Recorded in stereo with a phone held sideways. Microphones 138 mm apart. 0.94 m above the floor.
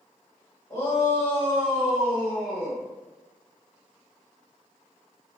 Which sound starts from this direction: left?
A shout, at 0.7 s.